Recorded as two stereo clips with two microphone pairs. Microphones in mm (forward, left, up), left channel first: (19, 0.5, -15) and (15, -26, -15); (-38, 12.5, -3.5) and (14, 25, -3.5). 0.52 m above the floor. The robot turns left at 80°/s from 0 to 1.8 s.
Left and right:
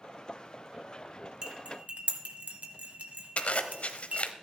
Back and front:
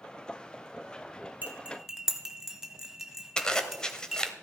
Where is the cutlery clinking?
35° right, 1.8 m; by 4.2 s 70° right, 1.8 m.